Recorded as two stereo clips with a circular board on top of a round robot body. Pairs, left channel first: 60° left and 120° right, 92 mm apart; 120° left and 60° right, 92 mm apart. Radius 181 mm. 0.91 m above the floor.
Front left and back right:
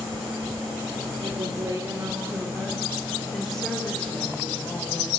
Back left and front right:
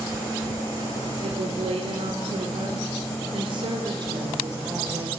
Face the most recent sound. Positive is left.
turn(degrees=-5)